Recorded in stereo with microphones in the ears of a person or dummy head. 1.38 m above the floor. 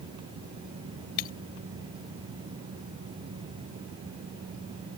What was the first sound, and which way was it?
Breaking glass, 45° left (ahead or behind).